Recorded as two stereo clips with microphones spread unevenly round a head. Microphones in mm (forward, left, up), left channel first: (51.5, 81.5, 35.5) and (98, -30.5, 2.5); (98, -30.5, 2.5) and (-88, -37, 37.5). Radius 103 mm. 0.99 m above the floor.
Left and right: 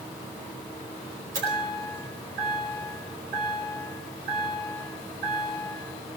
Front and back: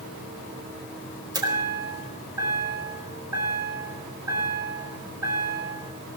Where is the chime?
105° right, 4 m.